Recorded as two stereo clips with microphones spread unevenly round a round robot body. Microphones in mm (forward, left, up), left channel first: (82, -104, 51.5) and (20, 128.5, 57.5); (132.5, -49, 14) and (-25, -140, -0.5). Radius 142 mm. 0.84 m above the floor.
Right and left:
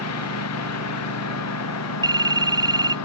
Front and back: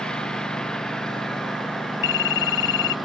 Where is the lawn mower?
55° right; by 3.1 s 60° right.